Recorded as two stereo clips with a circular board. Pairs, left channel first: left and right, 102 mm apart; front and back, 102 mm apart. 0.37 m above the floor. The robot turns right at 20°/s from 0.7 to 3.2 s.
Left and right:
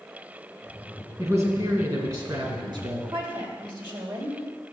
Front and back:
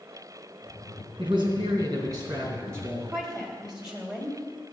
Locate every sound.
1.2 s a man speaking: 150° right, 3 m; by 3.0 s 110° right, 3 m
3.1 s a woman speaking: 95° right, 2.0 m